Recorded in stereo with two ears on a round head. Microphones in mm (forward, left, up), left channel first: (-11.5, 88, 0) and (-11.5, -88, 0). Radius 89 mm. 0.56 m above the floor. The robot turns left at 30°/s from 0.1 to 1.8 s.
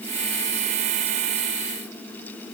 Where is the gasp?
I don't hear a gasp.